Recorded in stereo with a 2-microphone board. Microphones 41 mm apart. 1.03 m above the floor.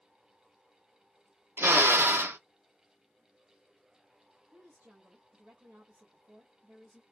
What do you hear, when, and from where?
1.6 s a drill: 65° right (ahead or behind), 0.5 m
4.5 s a woman speaking: 50° right (ahead or behind), 1.3 m